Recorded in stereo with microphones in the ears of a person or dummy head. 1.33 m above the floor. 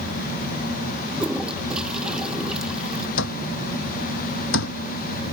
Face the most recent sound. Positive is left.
turn(degrees=70)  # may be behind; listen again after turning